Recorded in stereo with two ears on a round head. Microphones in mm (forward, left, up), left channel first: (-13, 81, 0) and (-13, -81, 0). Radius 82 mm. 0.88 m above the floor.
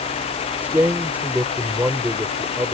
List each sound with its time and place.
0.6 s a man speaking: 10° right (ahead or behind)